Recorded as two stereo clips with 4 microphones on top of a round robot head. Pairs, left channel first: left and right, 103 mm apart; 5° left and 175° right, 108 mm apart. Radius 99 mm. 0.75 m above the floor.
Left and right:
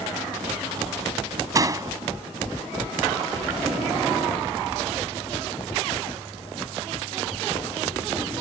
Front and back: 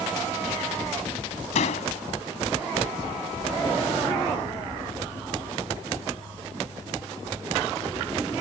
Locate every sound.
1.6 s a door slam: 30° right